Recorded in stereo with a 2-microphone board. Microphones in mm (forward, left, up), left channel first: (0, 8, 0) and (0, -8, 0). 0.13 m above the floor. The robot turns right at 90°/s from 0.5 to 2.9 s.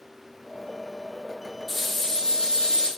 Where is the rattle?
Straight ahead, 3.5 m; by 2.9 s 110° left, 3.5 m.